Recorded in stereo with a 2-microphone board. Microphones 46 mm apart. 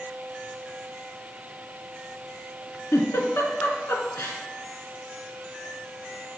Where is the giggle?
70° left (ahead or behind), 2.0 m.